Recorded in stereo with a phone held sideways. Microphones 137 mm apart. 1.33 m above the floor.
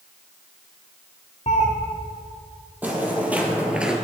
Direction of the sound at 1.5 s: 55° left (ahead or behind).